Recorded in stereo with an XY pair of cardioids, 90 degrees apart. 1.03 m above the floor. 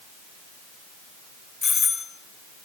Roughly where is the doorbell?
Ahead left.